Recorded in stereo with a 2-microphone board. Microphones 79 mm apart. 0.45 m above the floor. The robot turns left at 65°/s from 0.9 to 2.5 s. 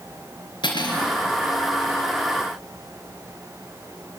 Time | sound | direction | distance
0.6 | cutlery clinking | 85° left | 4 m